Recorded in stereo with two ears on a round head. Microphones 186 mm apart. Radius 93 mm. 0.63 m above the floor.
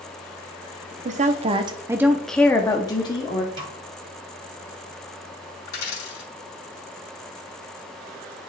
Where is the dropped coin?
55° left (ahead or behind), 3.5 m.